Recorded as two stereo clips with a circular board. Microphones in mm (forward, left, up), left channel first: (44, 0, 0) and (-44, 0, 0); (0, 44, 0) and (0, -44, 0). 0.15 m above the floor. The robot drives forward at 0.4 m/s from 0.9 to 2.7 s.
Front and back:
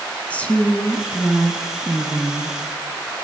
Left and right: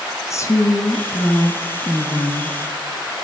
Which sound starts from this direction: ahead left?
A woman speaking, at 0.3 s.